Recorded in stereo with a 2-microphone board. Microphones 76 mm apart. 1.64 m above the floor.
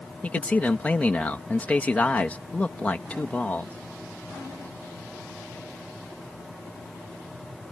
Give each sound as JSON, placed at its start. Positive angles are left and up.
{"t": 0.2, "sound": "a man speaking", "side_deg": 20}